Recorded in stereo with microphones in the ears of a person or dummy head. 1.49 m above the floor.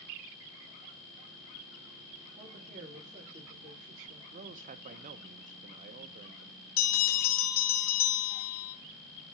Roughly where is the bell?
Left.